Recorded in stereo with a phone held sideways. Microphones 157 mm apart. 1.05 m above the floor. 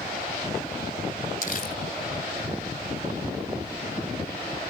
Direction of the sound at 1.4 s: 60° left (ahead or behind).